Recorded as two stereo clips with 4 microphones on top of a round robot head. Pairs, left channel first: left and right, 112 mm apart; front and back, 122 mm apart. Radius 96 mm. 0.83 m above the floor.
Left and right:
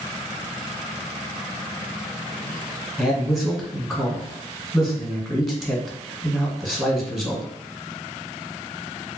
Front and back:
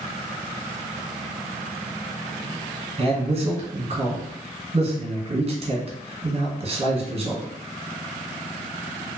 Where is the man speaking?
Straight behind, 1.4 m.